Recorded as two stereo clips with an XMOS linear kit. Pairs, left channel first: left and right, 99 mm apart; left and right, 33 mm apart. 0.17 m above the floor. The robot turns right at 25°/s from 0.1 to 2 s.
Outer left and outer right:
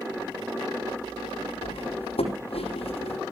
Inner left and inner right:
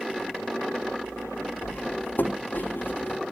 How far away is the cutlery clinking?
About 4.5 m.